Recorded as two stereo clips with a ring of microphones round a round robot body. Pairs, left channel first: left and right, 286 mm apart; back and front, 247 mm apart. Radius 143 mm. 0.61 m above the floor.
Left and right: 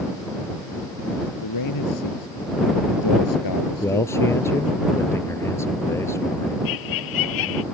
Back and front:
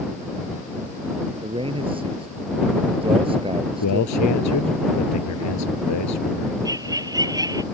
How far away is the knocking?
I don't hear knocking.